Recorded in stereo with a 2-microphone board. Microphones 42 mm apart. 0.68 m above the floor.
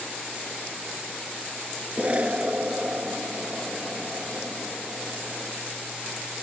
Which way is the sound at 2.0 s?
35° right (ahead or behind).